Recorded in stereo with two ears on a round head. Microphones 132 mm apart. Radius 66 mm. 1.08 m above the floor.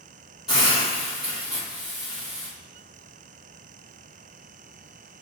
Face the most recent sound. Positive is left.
turn(degrees=-5)  # may be behind; listen again after turning